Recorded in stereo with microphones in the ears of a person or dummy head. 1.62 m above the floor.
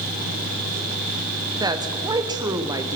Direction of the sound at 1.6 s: 20° right (ahead or behind).